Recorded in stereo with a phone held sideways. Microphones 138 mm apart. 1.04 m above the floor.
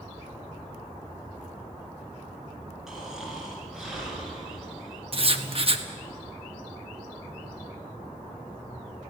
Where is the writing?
45° right (ahead or behind), 1.2 m.